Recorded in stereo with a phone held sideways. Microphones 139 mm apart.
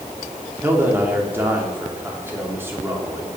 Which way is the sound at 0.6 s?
15° right (ahead or behind).